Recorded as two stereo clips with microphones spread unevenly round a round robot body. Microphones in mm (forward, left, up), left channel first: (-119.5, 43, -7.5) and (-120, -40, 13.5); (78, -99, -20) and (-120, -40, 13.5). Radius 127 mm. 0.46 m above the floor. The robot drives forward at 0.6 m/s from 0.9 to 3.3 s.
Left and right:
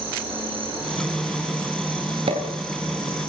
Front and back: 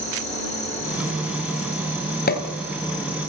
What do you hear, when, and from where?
0.0 s an insect: 75° right, 8 m; by 3.3 s 85° right, 7.5 m
2.3 s a pop: 50° right, 3 m